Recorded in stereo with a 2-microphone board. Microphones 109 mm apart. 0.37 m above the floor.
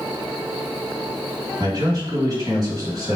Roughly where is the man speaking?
Right.